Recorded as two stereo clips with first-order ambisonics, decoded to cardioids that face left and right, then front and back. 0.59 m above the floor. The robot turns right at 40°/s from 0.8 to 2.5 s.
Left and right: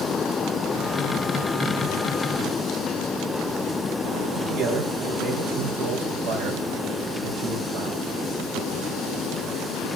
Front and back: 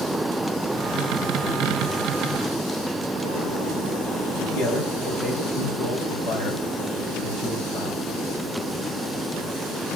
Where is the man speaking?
50° right, 3 m.